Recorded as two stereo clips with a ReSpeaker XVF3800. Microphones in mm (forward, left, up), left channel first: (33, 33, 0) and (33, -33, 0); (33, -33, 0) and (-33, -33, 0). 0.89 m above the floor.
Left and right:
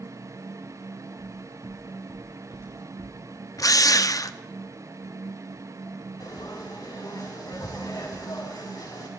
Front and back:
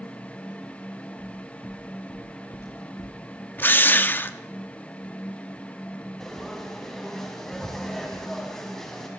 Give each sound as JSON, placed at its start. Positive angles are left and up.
{"t": 1.2, "sound": "footsteps", "azimuth_deg": -40, "distance_m": 6.0}
{"t": 3.6, "sound": "a drill", "azimuth_deg": 60, "distance_m": 0.7}
{"t": 6.2, "sound": "frying", "azimuth_deg": 85, "distance_m": 5.0}